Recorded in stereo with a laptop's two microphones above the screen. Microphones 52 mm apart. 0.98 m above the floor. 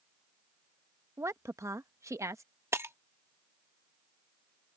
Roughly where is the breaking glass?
Right.